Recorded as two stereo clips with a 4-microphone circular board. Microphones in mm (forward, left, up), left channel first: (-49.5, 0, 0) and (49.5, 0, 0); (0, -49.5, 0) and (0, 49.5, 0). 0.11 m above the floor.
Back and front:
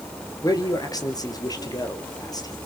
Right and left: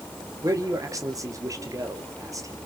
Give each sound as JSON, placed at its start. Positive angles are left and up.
{"t": 0.4, "sound": "a man speaking", "azimuth_deg": 140, "distance_m": 2.5}